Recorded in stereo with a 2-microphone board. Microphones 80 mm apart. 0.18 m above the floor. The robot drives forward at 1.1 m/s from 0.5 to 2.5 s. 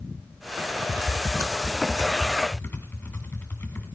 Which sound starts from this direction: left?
Typing on a keyboard, at 0.9 s.